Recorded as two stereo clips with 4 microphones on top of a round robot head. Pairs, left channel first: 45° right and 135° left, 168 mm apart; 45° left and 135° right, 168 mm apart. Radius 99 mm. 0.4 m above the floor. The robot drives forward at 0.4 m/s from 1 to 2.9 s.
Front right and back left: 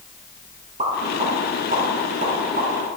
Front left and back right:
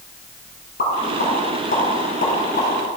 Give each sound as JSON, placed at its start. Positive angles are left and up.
{"t": 0.8, "sound": "a pop", "azimuth_deg": 80, "distance_m": 3.0}